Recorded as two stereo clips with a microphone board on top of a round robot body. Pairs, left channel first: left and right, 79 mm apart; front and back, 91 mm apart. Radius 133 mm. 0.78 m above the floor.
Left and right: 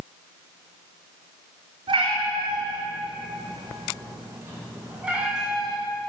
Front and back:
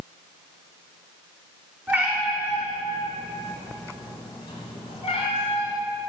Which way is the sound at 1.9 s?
110° right.